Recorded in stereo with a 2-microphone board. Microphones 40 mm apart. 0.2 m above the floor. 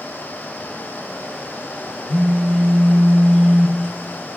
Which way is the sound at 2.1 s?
25° right (ahead or behind).